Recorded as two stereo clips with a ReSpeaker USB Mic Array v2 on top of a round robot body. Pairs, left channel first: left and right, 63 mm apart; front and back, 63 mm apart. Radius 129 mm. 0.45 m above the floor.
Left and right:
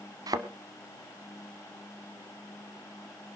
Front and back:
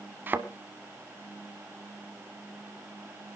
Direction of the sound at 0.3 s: 115° right.